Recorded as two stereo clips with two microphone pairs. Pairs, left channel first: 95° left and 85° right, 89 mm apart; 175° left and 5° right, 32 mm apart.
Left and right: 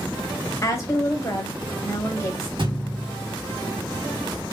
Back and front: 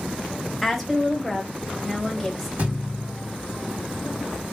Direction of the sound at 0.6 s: 85° left.